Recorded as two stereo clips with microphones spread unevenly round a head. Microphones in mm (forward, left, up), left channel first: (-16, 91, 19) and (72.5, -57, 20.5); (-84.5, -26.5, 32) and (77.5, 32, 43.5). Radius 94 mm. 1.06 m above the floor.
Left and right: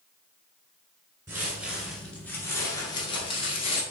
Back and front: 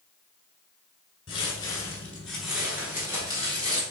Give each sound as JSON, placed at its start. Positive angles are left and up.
{"t": 1.3, "sound": "footsteps", "azimuth_deg": -115, "distance_m": 1.1}